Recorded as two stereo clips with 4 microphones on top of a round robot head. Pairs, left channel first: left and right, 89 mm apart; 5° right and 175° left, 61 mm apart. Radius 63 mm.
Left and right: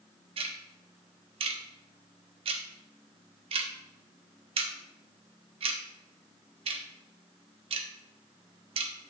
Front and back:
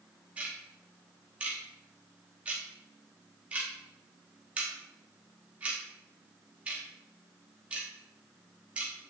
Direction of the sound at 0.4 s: 105° right.